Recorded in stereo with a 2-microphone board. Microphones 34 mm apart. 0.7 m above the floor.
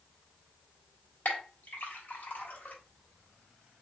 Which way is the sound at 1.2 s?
65° left (ahead or behind).